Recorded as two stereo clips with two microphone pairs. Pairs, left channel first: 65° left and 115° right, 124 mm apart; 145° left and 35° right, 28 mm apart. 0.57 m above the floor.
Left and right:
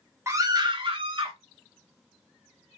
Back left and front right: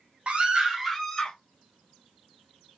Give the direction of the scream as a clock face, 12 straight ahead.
2 o'clock.